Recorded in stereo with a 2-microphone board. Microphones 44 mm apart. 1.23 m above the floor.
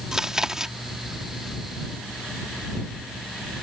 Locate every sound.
0.1 s chewing: 10° right (ahead or behind)